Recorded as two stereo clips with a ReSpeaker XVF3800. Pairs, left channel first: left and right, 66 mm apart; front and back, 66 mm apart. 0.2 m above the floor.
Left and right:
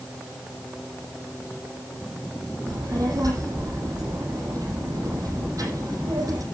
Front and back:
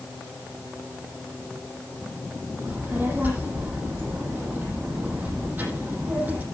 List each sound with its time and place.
2.7 s a child speaking: 120° right, 6.5 m